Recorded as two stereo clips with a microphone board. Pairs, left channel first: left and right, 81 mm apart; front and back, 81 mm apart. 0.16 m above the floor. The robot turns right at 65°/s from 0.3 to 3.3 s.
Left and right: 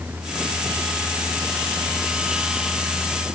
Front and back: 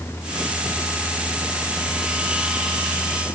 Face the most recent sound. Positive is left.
No sound to turn to.